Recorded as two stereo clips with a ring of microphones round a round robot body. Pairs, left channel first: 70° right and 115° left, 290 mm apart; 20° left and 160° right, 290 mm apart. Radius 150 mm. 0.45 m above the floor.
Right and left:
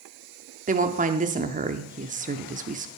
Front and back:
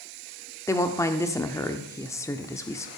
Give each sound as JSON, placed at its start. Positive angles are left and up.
{"t": 0.7, "sound": "a woman speaking", "azimuth_deg": 90, "distance_m": 0.7}